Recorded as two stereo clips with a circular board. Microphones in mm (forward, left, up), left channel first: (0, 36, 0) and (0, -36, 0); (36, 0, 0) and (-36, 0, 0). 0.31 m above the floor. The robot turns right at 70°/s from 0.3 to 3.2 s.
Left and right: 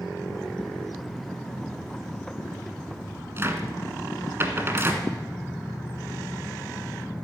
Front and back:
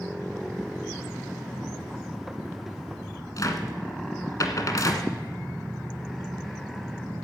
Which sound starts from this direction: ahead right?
A cupboard door, at 3.4 s.